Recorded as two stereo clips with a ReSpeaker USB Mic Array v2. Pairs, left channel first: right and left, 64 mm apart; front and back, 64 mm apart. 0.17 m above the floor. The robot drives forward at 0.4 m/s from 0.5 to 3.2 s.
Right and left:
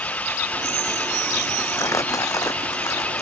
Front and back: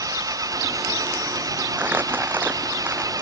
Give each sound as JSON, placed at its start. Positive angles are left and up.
{"t": 0.0, "sound": "an engine running", "azimuth_deg": -155}
{"t": 1.8, "sound": "crumpling", "azimuth_deg": -120}